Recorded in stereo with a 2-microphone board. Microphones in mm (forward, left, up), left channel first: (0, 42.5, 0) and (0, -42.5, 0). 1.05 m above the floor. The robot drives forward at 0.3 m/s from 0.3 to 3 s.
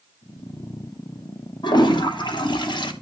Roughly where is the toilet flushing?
Left.